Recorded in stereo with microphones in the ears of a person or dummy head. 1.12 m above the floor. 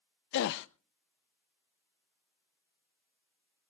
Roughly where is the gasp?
Left.